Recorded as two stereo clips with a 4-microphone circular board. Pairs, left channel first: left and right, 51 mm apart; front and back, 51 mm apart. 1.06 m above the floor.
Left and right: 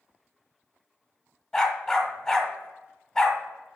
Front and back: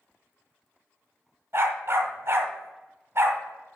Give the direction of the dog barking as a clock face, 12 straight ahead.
6 o'clock.